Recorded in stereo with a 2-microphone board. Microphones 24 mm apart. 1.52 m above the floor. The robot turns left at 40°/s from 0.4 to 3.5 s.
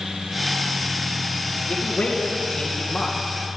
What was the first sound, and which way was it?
A man speaking, 80° left.